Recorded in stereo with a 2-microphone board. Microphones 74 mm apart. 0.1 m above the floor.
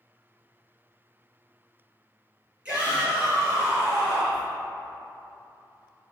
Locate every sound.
2.6 s a shout: 15° right (ahead or behind), 1.9 m; by 4.5 s 35° right (ahead or behind), 2.5 m